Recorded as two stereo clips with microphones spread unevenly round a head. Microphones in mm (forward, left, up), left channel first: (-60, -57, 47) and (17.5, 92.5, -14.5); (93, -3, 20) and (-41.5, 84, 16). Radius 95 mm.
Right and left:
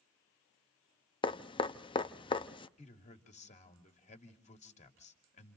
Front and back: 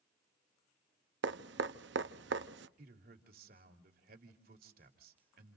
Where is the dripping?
Straight behind, 0.7 m.